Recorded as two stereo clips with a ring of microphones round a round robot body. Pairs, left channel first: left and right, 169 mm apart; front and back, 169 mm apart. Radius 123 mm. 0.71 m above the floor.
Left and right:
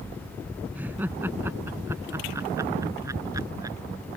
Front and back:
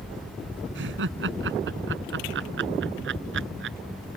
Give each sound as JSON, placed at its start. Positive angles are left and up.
{"t": 0.8, "sound": "laughter", "azimuth_deg": -175}